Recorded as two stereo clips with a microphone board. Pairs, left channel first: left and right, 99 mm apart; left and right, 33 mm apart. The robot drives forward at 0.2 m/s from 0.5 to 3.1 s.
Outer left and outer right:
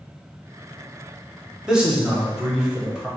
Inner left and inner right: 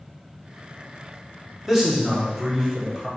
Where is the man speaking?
10° right (ahead or behind), 1.2 m; by 3.1 s 5° right (ahead or behind), 1.5 m.